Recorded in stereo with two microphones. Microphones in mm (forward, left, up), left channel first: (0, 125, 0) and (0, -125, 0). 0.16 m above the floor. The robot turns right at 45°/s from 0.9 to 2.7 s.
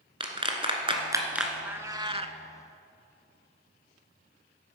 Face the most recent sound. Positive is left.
turn(degrees=-125)